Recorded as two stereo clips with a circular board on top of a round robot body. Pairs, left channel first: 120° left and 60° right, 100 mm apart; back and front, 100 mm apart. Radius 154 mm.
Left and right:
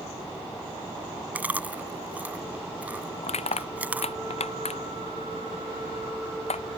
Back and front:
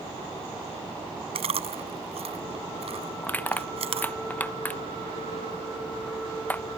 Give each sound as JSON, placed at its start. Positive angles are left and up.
{"t": 1.4, "sound": "chewing", "azimuth_deg": 15}
{"t": 3.2, "sound": "crushing", "azimuth_deg": 105}